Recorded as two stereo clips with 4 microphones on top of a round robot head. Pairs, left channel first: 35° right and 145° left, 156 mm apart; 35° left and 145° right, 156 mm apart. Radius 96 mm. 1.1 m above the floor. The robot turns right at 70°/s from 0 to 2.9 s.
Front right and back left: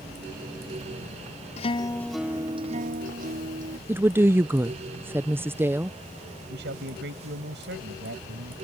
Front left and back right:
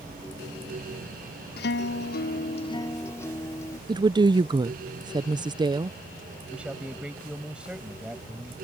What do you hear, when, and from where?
1.6 s a guitar: 15° left; by 3.8 s 110° left
3.9 s a woman speaking: 155° right
6.5 s a man speaking: 130° left